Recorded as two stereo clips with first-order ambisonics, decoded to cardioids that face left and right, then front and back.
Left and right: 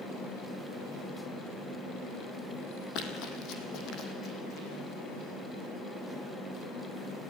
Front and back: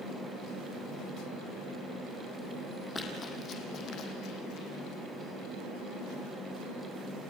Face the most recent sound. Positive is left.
turn(degrees=35)